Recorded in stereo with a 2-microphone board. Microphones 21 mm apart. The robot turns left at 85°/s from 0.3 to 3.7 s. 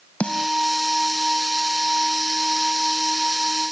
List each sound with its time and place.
0.2 s a snare drum: 85° left; by 0.5 s 70° left (ahead or behind)